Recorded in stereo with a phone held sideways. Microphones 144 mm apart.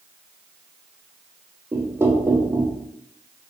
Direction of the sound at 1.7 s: 15° right (ahead or behind).